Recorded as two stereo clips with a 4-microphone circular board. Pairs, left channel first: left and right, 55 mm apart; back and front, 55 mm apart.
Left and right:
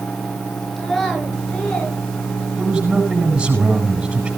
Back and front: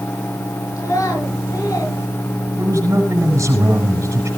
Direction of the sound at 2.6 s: 20° right.